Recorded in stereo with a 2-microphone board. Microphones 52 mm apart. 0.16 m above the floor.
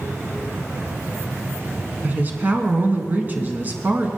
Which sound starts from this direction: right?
A woman speaking, at 2.0 s.